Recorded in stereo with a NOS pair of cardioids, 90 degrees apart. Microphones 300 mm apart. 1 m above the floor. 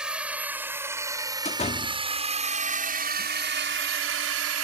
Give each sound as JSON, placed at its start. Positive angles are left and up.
{"t": 0.0, "sound": "a drone", "azimuth_deg": -5}
{"t": 1.4, "sound": "a door slam", "azimuth_deg": 20}